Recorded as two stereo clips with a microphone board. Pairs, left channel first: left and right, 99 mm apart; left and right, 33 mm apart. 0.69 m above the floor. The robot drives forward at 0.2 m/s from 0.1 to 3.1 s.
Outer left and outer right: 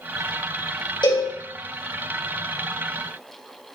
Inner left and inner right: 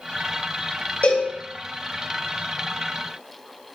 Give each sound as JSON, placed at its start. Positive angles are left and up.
{"t": 1.0, "sound": "a cowbell", "side_deg": 55, "distance_m": 2.5}